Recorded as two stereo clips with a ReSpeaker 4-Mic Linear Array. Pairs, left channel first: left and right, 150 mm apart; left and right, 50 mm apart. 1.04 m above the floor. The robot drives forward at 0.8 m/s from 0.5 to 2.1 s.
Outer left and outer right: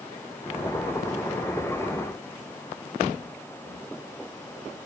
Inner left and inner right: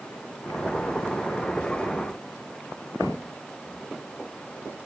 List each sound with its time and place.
Only background noise.